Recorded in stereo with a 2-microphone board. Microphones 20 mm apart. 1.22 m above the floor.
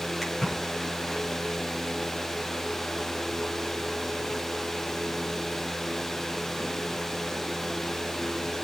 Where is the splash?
5° left (ahead or behind), 5.5 m.